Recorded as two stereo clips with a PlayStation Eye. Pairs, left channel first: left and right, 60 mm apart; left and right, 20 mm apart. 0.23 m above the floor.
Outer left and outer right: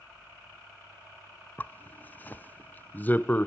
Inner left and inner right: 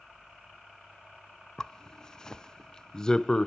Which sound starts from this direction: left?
A zipper, at 1.6 s.